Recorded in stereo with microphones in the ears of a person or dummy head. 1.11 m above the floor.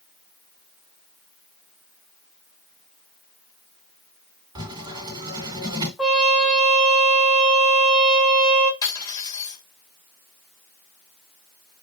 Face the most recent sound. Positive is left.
turn(degrees=25)  # may be behind; listen again after turning